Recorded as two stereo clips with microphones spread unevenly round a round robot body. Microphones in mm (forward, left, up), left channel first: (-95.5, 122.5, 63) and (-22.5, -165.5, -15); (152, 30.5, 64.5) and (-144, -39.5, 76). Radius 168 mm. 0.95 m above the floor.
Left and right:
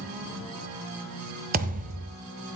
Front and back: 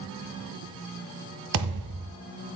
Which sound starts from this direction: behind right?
A thud, at 1.5 s.